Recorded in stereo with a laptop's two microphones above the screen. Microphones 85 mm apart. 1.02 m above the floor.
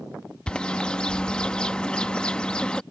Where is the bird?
15° left (ahead or behind).